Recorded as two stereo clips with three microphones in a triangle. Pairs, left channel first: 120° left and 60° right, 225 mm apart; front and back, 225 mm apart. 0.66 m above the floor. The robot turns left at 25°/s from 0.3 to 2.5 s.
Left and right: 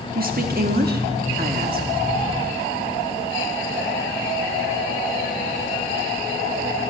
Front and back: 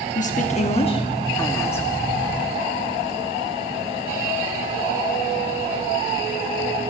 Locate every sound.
0.1 s a woman speaking: 40° right, 1.1 m; by 1.9 s 80° right, 1.1 m